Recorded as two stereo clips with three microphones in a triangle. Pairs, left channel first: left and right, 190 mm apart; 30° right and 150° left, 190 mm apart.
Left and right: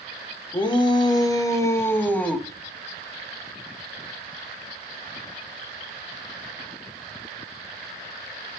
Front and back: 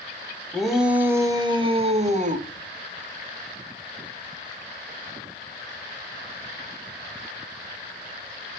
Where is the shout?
55° left, 1.0 m; by 2.5 s 170° left, 1.3 m.